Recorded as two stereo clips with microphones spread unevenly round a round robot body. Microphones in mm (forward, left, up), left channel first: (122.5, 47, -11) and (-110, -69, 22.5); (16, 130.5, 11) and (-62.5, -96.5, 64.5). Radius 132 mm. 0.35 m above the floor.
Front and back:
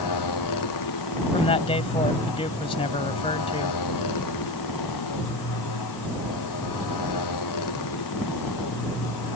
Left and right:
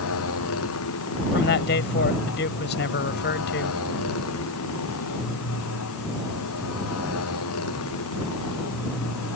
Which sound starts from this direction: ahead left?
A motorcycle, at 0.0 s.